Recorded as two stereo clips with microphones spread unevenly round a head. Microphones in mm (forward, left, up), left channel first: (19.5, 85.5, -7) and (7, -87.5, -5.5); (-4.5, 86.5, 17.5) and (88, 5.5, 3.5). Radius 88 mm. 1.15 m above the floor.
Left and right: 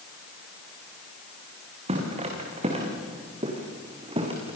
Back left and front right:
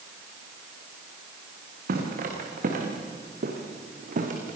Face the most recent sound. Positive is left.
turn(degrees=-35)